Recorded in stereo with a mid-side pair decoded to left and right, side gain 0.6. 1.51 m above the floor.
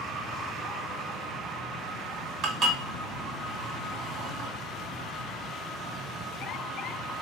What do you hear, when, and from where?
2.4 s dishes clattering: 50° right, 1.7 m